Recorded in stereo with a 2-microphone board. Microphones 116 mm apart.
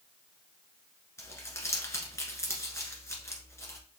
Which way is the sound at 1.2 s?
25° left (ahead or behind).